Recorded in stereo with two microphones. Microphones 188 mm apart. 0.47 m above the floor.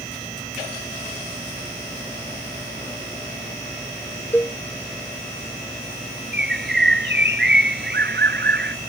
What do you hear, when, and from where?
4.3 s a cowbell: 10° left (ahead or behind)
6.3 s a bird: 75° right (ahead or behind)